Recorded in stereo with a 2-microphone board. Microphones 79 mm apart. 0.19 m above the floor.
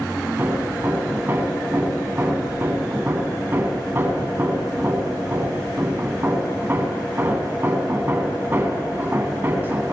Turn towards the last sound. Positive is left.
turn(degrees=-30)  # may be behind; listen again after turning